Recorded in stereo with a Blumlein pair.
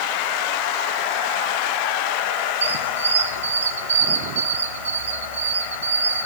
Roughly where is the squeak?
Right.